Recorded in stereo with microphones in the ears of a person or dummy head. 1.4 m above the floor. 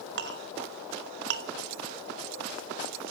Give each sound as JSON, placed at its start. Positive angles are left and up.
{"t": 0.2, "sound": "a clink", "side_deg": -60, "distance_m": 1.2}